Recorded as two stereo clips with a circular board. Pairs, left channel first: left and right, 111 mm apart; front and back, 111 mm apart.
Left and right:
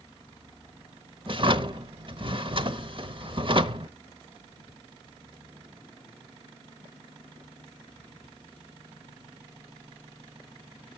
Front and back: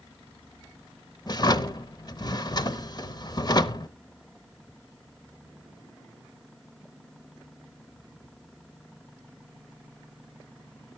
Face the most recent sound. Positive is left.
turn(degrees=-50)